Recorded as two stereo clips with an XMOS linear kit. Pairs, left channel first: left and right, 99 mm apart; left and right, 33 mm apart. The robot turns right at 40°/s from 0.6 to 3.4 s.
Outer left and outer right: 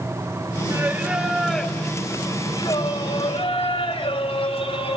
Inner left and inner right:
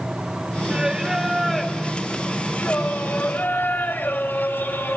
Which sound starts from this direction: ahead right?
Singing, at 0.7 s.